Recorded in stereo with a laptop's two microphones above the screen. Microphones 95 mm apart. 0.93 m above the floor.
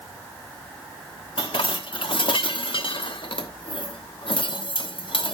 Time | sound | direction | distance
1.4 | dishes clattering | 70° left (ahead or behind) | 1.0 m